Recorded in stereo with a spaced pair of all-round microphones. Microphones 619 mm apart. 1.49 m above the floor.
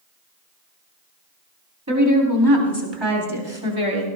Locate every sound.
1.9 s a woman speaking: 25° right (ahead or behind), 4 m; by 4.1 s 60° right (ahead or behind), 3.5 m